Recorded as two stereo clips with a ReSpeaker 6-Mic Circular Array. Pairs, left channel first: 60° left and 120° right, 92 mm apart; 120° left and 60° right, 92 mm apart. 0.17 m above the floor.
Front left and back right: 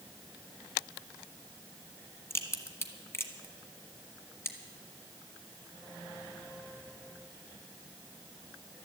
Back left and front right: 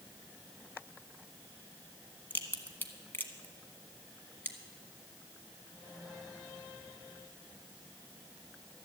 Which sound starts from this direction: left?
A crack, at 2.3 s.